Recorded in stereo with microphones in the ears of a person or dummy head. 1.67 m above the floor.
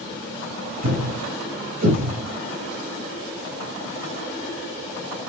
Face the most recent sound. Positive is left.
turn(degrees=-55)  # may be behind; listen again after turning